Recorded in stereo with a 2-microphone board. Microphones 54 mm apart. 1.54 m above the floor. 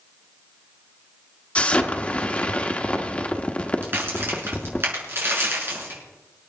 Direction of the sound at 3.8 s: 45° right (ahead or behind).